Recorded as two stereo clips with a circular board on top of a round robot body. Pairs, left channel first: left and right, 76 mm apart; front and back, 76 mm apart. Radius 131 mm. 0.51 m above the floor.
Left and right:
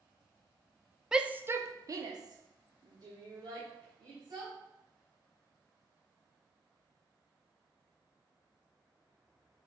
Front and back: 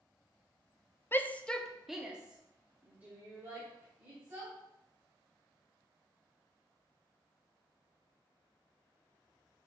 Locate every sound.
1.1 s a shout: 15° right, 0.9 m; by 4.5 s 115° right, 3.5 m